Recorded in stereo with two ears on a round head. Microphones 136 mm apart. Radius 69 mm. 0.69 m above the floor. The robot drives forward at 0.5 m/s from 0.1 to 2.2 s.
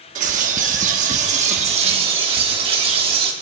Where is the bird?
50° right (ahead or behind), 1.0 m; by 3.3 s 40° right (ahead or behind), 1.3 m.